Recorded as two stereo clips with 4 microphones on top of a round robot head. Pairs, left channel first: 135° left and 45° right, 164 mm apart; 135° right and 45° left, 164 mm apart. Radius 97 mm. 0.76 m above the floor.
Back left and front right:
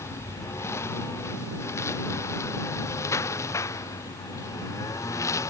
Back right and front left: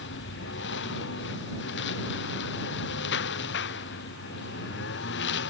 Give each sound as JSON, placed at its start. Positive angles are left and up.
{"t": 0.0, "sound": "a lawn mower", "azimuth_deg": -150}